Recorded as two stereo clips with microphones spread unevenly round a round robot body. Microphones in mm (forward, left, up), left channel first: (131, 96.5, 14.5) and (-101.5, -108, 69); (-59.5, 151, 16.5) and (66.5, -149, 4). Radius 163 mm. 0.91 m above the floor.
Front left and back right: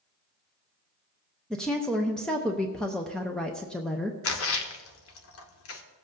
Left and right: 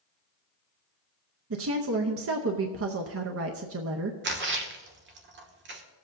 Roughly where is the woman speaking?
Ahead right.